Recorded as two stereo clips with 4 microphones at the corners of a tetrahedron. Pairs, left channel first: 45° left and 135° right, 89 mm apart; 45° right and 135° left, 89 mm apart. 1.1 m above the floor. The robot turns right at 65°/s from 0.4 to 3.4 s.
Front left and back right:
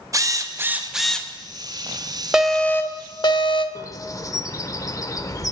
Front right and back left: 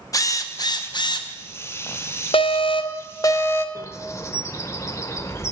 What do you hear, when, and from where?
0.1 s a drill: 85° right, 0.6 m; by 1.3 s 30° right, 0.6 m
2.3 s an alarm: 50° right, 0.6 m; by 3.6 s 20° left, 0.6 m
3.8 s a bird: 5° left, 0.6 m